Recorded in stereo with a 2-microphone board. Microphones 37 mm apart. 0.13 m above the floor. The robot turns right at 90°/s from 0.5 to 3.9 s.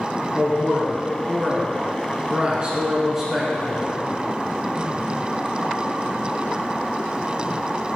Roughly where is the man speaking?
Left.